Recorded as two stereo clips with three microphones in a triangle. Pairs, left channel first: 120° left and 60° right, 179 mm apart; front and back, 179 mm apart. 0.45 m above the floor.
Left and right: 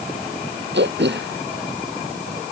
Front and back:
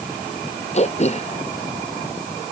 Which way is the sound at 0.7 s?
50° right.